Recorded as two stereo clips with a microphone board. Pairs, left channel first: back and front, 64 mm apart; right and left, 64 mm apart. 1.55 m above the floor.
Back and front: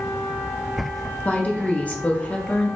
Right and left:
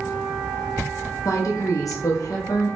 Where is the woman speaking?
115° right, 0.8 m.